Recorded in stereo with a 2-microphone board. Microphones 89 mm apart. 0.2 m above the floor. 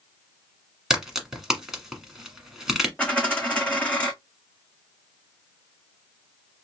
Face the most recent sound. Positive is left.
turn(degrees=15)  # may be behind; listen again after turning